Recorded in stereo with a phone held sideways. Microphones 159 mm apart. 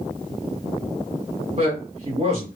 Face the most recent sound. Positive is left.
turn(degrees=-45)  # may be behind; listen again after turning